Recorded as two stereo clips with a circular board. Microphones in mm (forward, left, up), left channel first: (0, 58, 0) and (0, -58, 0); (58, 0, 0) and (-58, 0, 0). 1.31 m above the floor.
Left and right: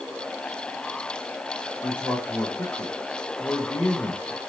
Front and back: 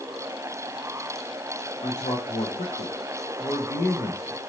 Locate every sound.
1.8 s a man speaking: 15° left, 0.8 m